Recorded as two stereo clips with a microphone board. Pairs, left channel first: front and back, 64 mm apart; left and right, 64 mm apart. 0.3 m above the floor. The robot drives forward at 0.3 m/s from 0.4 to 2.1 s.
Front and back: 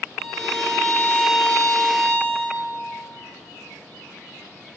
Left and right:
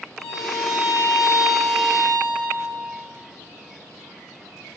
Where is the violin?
110° right, 3.5 m; by 2.6 s 115° right, 3.5 m.